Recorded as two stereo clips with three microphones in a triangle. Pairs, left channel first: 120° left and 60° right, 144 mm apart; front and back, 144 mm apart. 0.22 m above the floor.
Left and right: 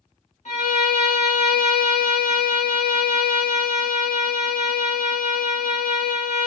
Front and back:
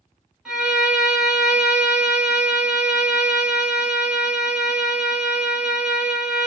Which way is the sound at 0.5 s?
95° left.